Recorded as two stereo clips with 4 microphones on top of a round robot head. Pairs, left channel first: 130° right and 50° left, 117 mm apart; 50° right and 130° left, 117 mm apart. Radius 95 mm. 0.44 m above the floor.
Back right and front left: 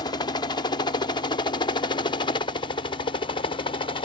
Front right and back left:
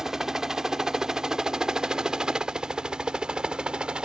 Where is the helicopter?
145° right.